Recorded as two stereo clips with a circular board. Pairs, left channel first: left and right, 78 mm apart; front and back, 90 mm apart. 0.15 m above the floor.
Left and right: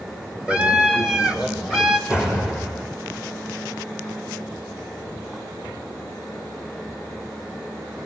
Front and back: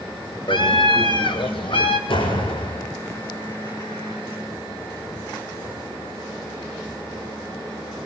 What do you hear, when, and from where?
0.5 s a scream: 15° right, 5.5 m; by 2.0 s 5° right, 5.5 m
2.1 s a door slam: 10° right, 6.5 m